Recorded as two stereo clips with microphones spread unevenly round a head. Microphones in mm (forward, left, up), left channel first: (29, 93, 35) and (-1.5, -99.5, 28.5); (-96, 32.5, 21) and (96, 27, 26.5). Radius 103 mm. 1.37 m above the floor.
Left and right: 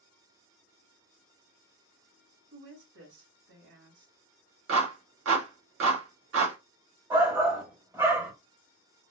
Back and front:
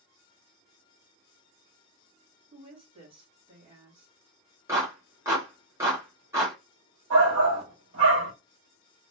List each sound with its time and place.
2.5 s a woman speaking: 65° right, 2.5 m
4.7 s a clap: 80° right, 1.7 m
7.1 s a shout: 25° right, 1.8 m